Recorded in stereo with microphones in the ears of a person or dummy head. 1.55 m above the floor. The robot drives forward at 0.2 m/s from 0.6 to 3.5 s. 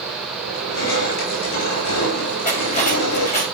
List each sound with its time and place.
0.5 s crushing: 85° left, 9 m
2.5 s cutlery clinking: 35° left (ahead or behind), 4.5 m